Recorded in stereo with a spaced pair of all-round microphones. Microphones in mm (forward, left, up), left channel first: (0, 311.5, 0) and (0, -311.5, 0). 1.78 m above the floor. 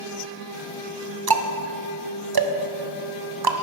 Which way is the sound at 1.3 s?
40° right (ahead or behind).